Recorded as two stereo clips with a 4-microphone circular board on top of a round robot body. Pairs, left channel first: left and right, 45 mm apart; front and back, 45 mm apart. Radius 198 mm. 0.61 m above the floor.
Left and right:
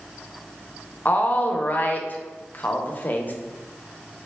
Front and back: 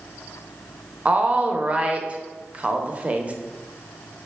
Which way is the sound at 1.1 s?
130° left.